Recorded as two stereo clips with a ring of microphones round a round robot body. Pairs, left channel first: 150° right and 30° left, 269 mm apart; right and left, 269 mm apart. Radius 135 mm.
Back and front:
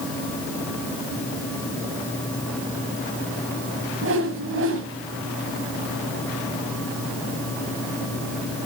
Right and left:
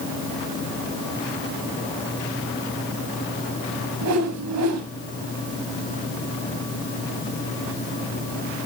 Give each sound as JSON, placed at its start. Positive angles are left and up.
{"t": 4.0, "sound": "a whoosh", "azimuth_deg": 70, "distance_m": 2.5}